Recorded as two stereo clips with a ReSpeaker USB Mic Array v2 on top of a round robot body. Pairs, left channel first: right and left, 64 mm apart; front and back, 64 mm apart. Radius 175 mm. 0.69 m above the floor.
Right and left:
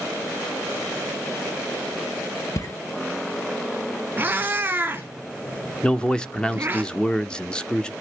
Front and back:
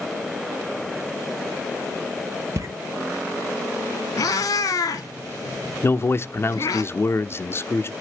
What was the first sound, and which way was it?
Footsteps, 135° right.